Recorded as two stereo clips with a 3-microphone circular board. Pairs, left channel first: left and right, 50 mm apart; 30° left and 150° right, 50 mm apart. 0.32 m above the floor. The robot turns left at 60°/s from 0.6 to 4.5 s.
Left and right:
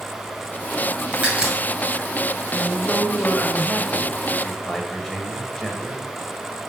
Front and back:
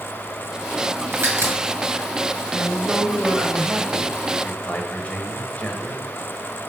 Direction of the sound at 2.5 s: 135° left.